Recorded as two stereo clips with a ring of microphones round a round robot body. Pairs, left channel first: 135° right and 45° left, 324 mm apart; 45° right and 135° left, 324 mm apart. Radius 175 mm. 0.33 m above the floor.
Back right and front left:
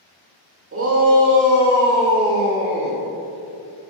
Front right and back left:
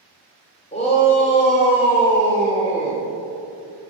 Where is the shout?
20° left, 1.1 m; by 3.0 s 25° left, 2.5 m.